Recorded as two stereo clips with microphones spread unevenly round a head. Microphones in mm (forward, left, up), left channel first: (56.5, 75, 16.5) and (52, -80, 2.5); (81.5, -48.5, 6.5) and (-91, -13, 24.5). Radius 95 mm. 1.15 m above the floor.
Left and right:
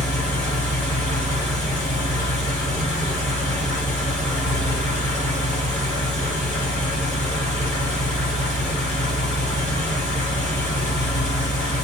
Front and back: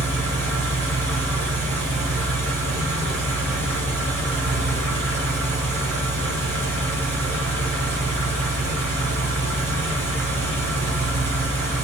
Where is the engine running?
140° left, 1.0 m.